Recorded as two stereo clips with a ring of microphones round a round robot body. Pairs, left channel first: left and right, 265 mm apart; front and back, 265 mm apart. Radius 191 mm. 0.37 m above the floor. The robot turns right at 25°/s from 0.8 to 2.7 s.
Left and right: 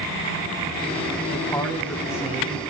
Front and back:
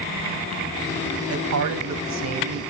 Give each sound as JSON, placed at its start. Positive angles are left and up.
{"t": 1.3, "sound": "a man speaking", "azimuth_deg": 160, "distance_m": 2.5}